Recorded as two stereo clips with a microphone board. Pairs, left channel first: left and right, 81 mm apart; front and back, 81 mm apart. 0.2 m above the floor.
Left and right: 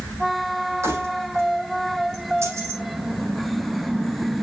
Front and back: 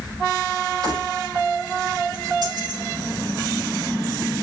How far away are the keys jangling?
About 6.5 m.